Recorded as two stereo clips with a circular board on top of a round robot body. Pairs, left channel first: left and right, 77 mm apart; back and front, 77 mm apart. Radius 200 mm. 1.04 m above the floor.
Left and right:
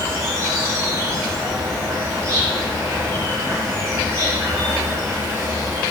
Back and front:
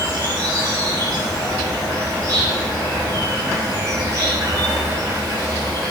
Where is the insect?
35° right, 1.8 m.